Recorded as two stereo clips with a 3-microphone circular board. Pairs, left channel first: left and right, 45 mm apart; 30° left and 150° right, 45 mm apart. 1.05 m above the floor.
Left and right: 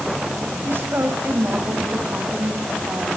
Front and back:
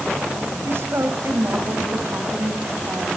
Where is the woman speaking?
120° right, 6 m.